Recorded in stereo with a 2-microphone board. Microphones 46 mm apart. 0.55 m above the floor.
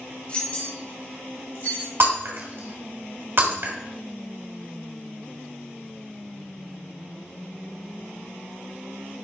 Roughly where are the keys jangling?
Left.